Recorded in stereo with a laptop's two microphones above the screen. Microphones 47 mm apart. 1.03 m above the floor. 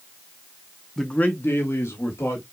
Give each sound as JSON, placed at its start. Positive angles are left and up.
{"t": 1.0, "sound": "a man speaking", "side_deg": 0, "distance_m": 0.6}